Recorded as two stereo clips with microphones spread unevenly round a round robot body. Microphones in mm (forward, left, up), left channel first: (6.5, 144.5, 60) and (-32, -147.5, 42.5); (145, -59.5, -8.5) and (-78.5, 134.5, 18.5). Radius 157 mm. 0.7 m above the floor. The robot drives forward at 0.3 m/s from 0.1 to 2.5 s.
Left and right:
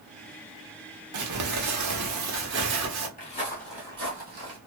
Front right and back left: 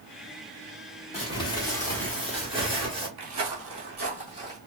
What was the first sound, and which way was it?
Crumpling, 110° right.